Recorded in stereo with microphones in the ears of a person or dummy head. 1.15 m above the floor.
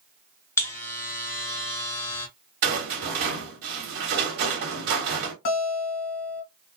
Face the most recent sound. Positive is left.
turn(degrees=55)  # may be behind; listen again after turning